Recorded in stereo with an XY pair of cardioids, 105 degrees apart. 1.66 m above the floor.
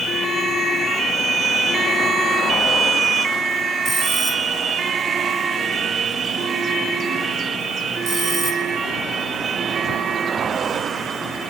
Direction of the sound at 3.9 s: 60° right.